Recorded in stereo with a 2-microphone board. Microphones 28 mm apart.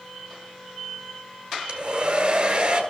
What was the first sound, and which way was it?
A hair dryer, 35° right (ahead or behind).